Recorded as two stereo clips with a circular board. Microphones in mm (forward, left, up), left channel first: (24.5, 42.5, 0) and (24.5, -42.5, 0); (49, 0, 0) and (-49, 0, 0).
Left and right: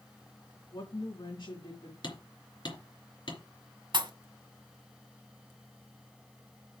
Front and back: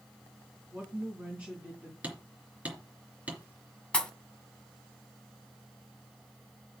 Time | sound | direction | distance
0.7 | a woman speaking | 110° left | 3 m
2.0 | hammering | 105° left | 3 m
3.9 | a pop | 80° right | 1.6 m